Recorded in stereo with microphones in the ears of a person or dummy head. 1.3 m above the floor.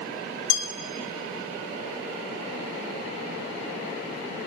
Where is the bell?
75° left (ahead or behind), 1.5 m.